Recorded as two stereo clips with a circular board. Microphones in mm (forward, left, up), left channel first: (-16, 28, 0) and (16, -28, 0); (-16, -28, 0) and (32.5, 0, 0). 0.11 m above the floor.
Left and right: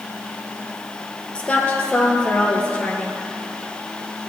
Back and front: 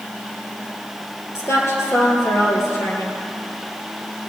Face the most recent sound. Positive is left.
turn(degrees=-170)